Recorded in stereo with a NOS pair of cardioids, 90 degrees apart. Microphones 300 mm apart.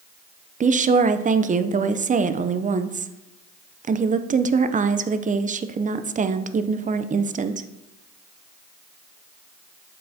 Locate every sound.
0.6 s a woman speaking: 25° right, 0.6 m